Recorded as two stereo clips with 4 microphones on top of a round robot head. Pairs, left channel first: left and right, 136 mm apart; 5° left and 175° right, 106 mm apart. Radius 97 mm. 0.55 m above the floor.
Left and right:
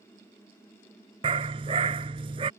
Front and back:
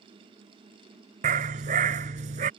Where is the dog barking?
150° right.